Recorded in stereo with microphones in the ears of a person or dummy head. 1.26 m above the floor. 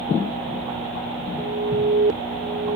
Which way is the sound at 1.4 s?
45° right (ahead or behind).